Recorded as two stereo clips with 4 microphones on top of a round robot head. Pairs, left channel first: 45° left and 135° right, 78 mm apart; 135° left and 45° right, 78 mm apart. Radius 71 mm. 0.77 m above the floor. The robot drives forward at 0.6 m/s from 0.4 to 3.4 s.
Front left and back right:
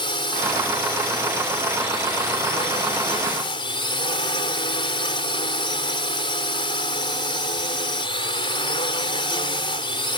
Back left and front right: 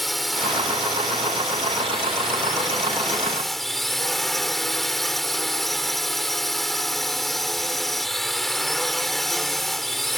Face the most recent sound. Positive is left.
turn(degrees=45)